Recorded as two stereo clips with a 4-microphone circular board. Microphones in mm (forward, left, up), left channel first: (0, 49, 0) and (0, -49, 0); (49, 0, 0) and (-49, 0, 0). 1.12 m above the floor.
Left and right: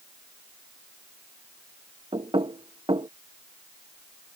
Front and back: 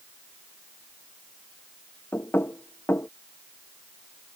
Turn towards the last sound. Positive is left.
turn(degrees=-65)